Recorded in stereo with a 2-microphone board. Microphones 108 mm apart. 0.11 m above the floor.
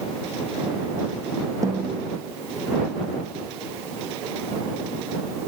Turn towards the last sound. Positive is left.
turn(degrees=-30)  # may be behind; listen again after turning